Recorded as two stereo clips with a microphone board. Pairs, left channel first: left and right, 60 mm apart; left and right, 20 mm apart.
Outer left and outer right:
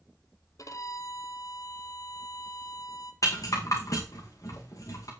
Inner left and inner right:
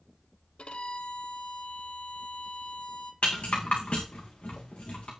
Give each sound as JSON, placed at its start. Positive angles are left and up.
{"t": 0.6, "sound": "a violin", "side_deg": 75, "distance_m": 0.7}
{"t": 3.2, "sound": "a rattle", "side_deg": 75, "distance_m": 3.0}